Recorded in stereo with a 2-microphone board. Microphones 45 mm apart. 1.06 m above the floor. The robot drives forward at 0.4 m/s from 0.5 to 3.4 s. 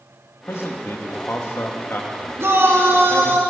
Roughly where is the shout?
Right.